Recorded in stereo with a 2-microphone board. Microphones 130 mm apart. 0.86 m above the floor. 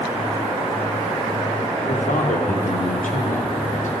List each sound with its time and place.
1.9 s a man speaking: 75° left (ahead or behind), 2 m